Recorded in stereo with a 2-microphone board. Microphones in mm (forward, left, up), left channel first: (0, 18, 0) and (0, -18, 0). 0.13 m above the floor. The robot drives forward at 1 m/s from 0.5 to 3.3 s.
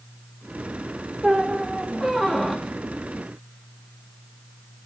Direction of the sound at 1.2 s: 15° right (ahead or behind).